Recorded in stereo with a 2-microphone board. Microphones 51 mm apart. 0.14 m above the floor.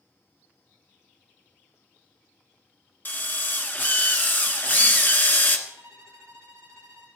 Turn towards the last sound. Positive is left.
turn(degrees=-70)  # may be behind; listen again after turning